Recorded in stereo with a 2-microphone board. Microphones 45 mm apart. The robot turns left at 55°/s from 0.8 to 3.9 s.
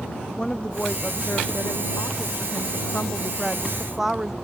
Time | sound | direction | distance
0.4 | a woman speaking | 160° left | ?